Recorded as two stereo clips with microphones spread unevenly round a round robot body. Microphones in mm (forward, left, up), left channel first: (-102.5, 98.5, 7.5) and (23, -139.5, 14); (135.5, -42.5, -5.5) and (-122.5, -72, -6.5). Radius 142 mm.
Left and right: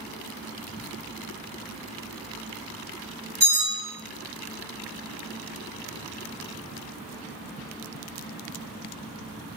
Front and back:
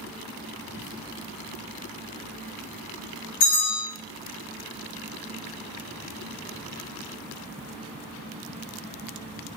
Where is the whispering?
25° right, 2 m.